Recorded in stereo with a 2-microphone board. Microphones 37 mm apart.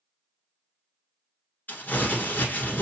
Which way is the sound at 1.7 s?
60° left (ahead or behind).